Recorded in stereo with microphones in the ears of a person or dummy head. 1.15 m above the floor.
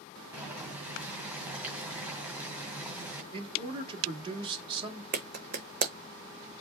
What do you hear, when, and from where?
0.3 s boiling: 10° right (ahead or behind), 1.7 m
3.3 s a man speaking: 30° right (ahead or behind), 2.0 m
5.1 s a clap: 50° right (ahead or behind), 0.9 m